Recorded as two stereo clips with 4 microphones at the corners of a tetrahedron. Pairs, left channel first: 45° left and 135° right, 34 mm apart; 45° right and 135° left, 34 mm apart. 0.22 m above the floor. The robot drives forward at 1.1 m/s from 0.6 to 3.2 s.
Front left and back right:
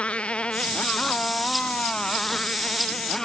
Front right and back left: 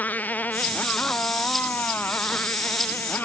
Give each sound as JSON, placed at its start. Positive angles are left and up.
{"t": 0.0, "sound": "a motorcycle", "azimuth_deg": -10}